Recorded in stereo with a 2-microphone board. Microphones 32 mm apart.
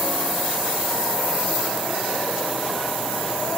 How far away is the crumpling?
I don't hear crumpling.